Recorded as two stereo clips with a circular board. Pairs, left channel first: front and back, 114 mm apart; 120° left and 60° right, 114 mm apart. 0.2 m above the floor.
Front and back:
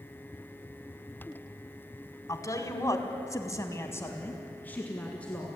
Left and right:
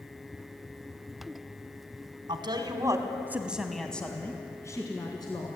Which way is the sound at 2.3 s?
50° right.